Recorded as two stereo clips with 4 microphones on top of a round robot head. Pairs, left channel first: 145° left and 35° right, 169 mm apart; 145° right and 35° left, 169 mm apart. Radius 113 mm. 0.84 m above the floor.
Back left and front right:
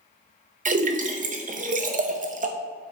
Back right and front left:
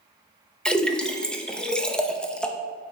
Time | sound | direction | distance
0.7 | a splash | 65° right | 0.7 m